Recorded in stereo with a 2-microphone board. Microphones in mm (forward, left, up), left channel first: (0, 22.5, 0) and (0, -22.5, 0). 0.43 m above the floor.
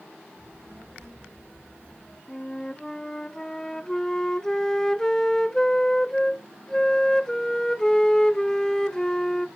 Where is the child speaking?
65° right (ahead or behind), 7.5 m; by 2.2 s 60° right (ahead or behind), 8 m.